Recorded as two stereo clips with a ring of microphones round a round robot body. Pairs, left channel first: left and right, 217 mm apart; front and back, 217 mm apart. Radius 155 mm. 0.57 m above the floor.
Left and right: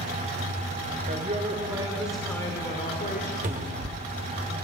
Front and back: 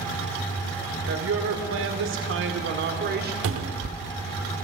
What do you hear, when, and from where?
1.1 s a woman speaking: 150° right, 1.6 m; by 3.3 s 140° left, 1.5 m
3.4 s a cupboard door: 155° right, 0.7 m